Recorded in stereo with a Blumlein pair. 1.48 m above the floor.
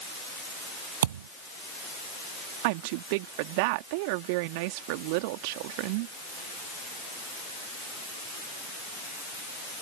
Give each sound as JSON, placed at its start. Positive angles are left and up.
{"t": 1.0, "sound": "a thud", "azimuth_deg": -65}
{"t": 2.6, "sound": "a woman speaking", "azimuth_deg": -45}